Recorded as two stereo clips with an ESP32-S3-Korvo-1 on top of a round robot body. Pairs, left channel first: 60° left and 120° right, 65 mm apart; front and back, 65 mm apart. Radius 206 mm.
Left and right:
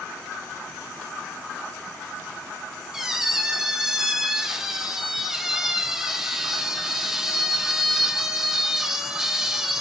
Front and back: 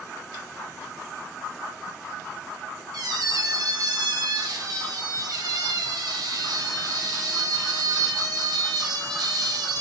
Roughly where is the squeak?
Behind left.